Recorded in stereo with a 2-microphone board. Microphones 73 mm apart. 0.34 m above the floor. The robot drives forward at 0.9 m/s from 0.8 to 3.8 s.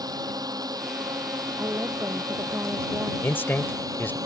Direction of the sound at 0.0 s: 60° right (ahead or behind).